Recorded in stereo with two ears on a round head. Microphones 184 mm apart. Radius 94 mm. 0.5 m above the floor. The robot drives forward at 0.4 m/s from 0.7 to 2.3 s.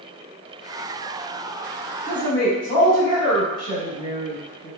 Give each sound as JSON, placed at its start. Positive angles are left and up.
{"t": 2.0, "sound": "a woman speaking", "side_deg": 25, "distance_m": 1.4}